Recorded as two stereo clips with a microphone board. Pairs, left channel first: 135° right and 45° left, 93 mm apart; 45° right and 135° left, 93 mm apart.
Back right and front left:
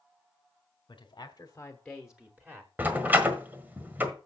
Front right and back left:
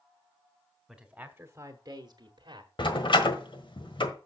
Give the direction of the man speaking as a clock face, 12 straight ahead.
4 o'clock.